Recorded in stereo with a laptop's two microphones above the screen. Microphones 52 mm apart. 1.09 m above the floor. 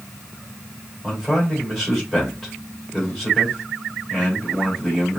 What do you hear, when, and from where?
1.0 s a man speaking: 10° left (ahead or behind), 2.5 m